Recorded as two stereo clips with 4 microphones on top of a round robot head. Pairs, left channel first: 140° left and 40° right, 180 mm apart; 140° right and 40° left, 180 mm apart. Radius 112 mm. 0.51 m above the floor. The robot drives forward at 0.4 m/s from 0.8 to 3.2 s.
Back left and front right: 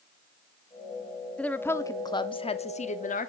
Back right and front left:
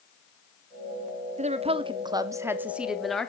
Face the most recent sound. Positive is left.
turn(degrees=135)